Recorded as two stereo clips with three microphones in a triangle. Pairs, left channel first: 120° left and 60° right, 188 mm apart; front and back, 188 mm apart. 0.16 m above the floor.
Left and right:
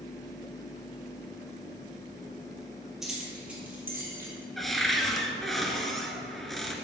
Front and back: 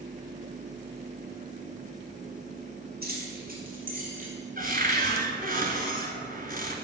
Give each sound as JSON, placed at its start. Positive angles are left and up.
{"t": 3.0, "sound": "keys jangling", "azimuth_deg": -150, "distance_m": 3.0}
{"t": 4.6, "sound": "a cupboard door", "azimuth_deg": -150, "distance_m": 1.3}